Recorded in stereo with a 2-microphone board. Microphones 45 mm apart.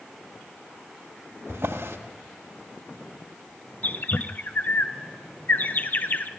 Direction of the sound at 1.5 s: 75° right (ahead or behind).